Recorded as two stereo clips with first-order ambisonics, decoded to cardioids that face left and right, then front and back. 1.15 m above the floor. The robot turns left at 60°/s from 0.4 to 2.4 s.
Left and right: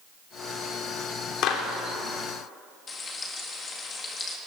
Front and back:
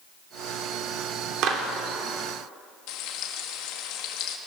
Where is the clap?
135° left, 3 m; by 1.6 s 120° left, 3 m.